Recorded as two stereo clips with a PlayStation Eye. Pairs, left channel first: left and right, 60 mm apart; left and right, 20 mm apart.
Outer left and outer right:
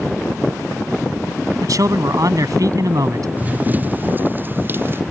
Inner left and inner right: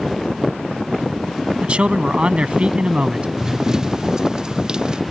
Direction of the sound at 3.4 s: 30° right (ahead or behind).